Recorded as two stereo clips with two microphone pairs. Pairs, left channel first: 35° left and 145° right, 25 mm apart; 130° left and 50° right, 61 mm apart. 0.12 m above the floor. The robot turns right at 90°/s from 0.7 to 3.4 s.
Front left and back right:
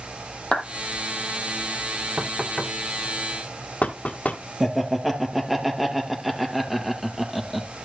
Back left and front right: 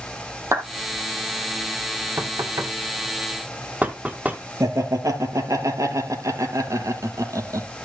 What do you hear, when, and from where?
0.5 s a clap: 20° right, 3 m
2.2 s knocking: 95° right, 2.0 m; by 4.4 s 15° left, 2.0 m
4.6 s laughter: 65° right, 3 m